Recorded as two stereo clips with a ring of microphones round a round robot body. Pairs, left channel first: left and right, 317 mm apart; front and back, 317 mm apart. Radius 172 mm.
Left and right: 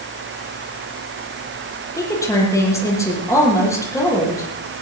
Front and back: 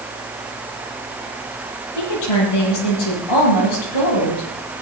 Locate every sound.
2.0 s a woman speaking: 10° left, 9 m